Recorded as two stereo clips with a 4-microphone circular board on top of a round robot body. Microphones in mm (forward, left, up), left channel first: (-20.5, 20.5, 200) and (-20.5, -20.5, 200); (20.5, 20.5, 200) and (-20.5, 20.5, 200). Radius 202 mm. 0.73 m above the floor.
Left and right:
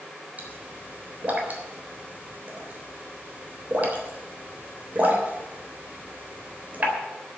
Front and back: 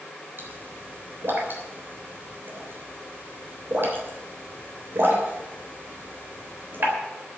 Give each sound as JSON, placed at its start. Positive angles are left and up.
{"t": 0.4, "sound": "a pop", "azimuth_deg": -145, "distance_m": 3.5}